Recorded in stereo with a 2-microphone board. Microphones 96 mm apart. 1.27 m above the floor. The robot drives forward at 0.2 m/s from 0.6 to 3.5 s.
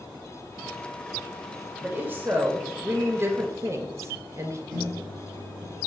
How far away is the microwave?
About 1.6 m.